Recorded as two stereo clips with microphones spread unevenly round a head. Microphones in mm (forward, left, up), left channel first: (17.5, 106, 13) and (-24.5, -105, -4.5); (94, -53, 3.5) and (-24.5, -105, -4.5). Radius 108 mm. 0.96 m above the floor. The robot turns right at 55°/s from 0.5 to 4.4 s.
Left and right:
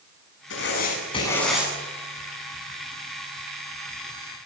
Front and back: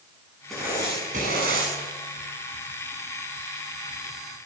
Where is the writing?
110° left, 8.5 m; by 1.7 s straight behind, 8.5 m.